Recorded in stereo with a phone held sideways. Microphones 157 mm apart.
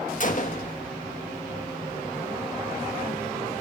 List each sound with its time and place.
0.2 s a gunshot: 55° left (ahead or behind), 1.6 m